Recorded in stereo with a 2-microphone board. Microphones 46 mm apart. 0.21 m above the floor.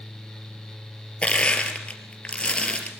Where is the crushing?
25° left (ahead or behind), 3.5 m.